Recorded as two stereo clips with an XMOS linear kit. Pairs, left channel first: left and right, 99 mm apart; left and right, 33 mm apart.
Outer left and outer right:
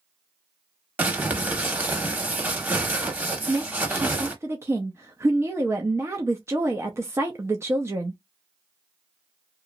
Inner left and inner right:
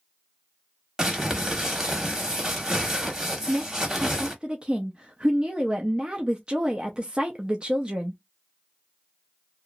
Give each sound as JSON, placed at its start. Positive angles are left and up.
{"t": 1.0, "sound": "crumpling", "side_deg": -15, "distance_m": 1.0}
{"t": 3.5, "sound": "a woman speaking", "side_deg": -30, "distance_m": 0.6}